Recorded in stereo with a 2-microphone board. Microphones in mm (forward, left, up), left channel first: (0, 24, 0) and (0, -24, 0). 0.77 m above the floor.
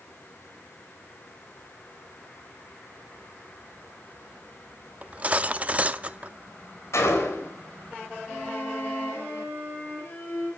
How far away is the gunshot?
About 3.5 m.